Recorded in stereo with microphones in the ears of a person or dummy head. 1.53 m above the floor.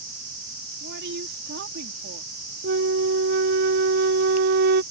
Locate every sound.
0.8 s a woman speaking: 60° right (ahead or behind)
2.6 s a flute: 50° right (ahead or behind)